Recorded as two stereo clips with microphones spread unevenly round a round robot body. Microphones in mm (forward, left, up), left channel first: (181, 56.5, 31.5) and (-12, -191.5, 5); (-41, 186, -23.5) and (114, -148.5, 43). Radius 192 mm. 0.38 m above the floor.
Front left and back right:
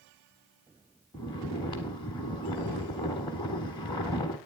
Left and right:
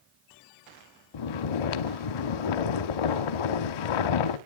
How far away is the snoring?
About 0.7 m.